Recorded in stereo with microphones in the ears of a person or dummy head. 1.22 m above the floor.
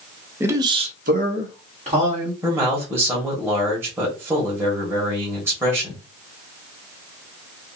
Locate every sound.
0.4 s a man speaking: 15° right (ahead or behind), 0.8 m; by 2.3 s 30° right (ahead or behind), 1.5 m
2.4 s a man speaking: 15° right (ahead or behind), 1.1 m